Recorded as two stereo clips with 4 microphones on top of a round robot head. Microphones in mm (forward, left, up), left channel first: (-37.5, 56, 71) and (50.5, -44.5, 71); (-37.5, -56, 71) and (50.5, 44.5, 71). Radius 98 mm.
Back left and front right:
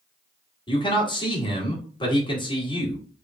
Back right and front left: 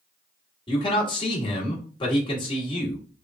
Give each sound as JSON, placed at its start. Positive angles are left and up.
{"t": 0.7, "sound": "a man speaking", "azimuth_deg": 180, "distance_m": 1.8}